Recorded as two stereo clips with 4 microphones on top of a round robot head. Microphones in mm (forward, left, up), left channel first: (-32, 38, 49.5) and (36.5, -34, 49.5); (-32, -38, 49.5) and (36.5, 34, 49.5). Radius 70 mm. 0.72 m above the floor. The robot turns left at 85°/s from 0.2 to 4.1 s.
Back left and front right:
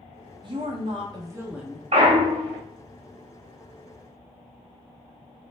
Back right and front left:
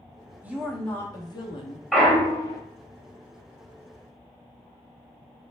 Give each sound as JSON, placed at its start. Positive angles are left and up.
{"t": 0.4, "sound": "a woman speaking", "azimuth_deg": -25, "distance_m": 0.9}
{"t": 1.9, "sound": "a clunk", "azimuth_deg": -45, "distance_m": 0.5}